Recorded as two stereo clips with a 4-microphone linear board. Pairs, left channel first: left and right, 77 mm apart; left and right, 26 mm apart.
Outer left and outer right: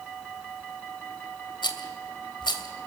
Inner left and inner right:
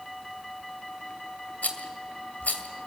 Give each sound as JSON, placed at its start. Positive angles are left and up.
{"t": 1.6, "sound": "a rattle", "side_deg": 75, "distance_m": 2.0}